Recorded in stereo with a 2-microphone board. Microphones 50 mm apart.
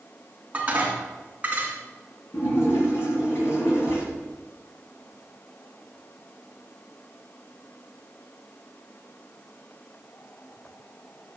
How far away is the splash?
About 5.5 m.